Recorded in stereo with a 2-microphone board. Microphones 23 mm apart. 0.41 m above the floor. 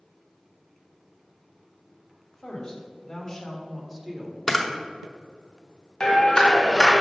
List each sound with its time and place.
2.3 s a woman speaking: 45° left (ahead or behind), 1.9 m; by 4.4 s 15° right (ahead or behind), 1.5 m
4.5 s a camera shutter: 5° left (ahead or behind), 0.9 m
6.0 s a clap: 35° left (ahead or behind), 2.0 m